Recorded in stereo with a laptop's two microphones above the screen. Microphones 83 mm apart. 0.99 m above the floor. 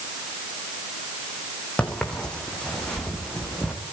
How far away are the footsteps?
About 3 m.